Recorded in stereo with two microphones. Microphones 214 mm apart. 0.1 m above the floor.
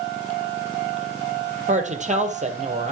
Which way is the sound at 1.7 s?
35° right (ahead or behind).